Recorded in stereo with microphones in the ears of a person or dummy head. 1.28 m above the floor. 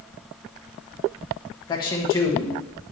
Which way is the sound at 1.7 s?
25° left (ahead or behind).